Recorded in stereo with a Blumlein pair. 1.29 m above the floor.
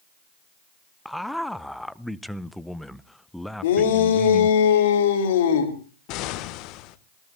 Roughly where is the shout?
Ahead left.